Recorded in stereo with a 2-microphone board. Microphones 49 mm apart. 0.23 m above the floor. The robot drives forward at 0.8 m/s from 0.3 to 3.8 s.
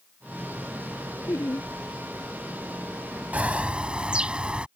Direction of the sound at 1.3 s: 65° left (ahead or behind).